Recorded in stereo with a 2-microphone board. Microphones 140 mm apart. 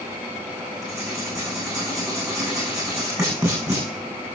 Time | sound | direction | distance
0.8 | writing | 20° right (ahead or behind) | 8.5 m